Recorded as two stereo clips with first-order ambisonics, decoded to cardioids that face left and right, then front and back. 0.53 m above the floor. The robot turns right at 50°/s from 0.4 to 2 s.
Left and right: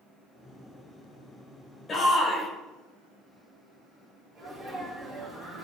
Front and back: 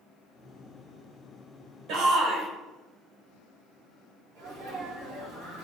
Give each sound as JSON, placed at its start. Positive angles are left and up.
{"t": 1.9, "sound": "a shout", "azimuth_deg": 155, "distance_m": 2.5}
{"t": 4.3, "sound": "a sneeze", "azimuth_deg": -165, "distance_m": 3.5}